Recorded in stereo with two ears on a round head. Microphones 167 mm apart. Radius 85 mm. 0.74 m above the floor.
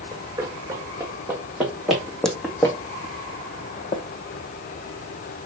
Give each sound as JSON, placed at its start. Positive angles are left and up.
{"t": 0.1, "sound": "running footsteps", "side_deg": -15, "distance_m": 3.0}